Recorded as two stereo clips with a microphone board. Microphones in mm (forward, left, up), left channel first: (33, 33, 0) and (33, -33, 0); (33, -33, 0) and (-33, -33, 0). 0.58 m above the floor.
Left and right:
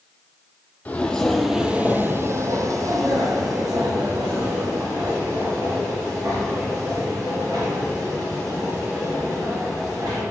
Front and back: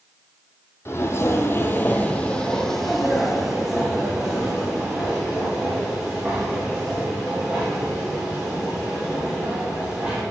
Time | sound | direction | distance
0.8 | footsteps | 30° left | 0.8 m